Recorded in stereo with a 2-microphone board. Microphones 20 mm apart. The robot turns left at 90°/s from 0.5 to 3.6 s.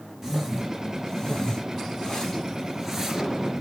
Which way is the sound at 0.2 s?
15° right (ahead or behind).